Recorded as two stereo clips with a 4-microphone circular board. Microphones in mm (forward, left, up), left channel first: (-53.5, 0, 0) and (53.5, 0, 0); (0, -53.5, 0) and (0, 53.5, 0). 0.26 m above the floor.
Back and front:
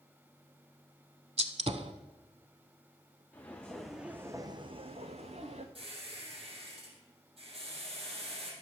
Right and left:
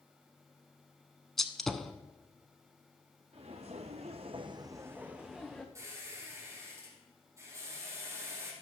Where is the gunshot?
5° right, 0.7 m.